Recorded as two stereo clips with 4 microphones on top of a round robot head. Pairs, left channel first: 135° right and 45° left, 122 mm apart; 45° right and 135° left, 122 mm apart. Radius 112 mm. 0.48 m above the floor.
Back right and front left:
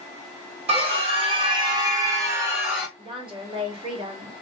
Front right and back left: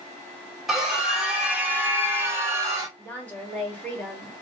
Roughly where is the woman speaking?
Ahead left.